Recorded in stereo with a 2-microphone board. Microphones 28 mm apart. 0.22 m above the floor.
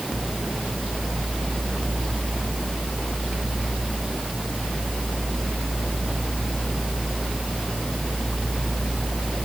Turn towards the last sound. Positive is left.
No sound to turn to.